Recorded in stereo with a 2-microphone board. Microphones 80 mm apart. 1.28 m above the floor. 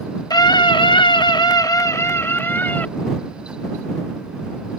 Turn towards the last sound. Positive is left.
turn(degrees=25)  # may be behind; listen again after turning